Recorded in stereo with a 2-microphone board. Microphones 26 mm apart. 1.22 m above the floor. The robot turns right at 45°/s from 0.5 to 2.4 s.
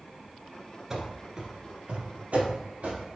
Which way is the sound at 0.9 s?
15° right (ahead or behind).